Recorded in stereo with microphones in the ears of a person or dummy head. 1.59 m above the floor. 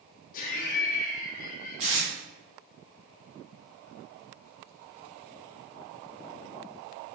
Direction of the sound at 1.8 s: 30° right (ahead or behind).